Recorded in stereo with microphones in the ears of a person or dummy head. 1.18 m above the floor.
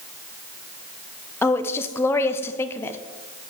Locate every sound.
1.4 s a woman speaking: 15° left (ahead or behind), 0.6 m